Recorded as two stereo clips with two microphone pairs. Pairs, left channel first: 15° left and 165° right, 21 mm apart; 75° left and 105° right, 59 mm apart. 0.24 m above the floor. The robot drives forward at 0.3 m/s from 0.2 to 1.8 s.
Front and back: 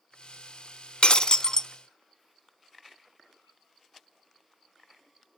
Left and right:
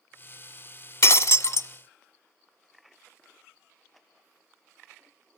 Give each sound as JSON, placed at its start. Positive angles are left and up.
{"t": 1.0, "sound": "breaking glass", "azimuth_deg": 45, "distance_m": 0.6}